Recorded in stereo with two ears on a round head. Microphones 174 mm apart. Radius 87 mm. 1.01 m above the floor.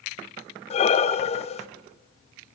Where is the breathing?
35° left (ahead or behind), 0.7 m.